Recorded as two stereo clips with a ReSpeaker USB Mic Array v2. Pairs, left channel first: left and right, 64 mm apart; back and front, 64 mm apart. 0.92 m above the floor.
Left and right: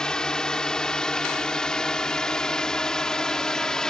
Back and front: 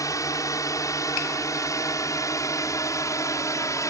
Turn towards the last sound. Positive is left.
turn(degrees=165)